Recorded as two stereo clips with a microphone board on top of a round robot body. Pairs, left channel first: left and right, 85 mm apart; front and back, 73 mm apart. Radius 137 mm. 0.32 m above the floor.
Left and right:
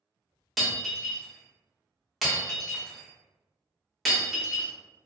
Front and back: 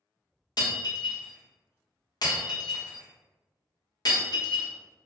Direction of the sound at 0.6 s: Straight ahead.